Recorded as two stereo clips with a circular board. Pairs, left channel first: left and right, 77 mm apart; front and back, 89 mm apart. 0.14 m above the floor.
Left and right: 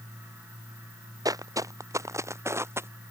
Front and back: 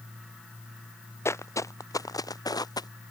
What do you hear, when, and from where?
1.2 s footsteps: 55° right; by 2.9 s 35° right